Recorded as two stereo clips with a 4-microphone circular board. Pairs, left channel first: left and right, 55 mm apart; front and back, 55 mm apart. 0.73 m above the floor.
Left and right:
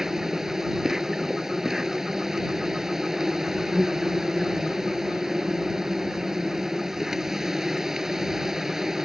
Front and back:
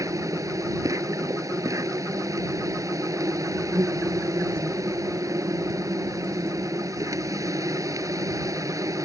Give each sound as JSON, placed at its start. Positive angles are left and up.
{"t": 0.0, "sound": "an insect", "azimuth_deg": -175}